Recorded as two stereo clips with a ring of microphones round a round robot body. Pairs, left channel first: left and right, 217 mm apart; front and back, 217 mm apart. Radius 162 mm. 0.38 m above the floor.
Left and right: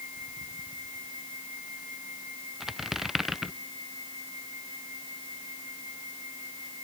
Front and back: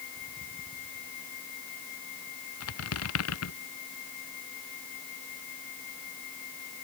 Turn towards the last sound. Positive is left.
turn(degrees=0)